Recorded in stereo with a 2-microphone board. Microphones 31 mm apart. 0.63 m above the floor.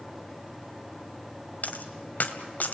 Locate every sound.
1.6 s a dropped coin: 60° left (ahead or behind), 1.5 m